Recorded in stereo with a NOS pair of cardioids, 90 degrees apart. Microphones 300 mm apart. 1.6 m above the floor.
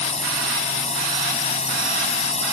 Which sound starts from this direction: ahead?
A drone, at 0.0 s.